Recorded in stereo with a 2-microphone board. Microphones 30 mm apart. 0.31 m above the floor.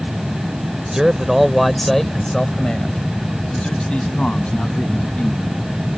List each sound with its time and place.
0.9 s a man speaking: 20° right (ahead or behind); by 5.6 s 45° left (ahead or behind)